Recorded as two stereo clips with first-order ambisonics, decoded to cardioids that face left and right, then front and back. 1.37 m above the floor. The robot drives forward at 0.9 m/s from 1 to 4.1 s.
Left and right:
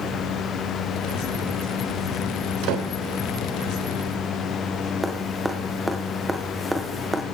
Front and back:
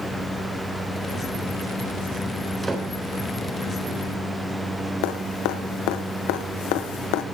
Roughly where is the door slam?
Right.